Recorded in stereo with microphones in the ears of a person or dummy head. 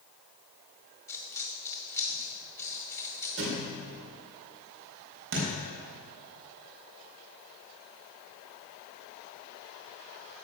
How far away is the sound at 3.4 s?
About 3 m.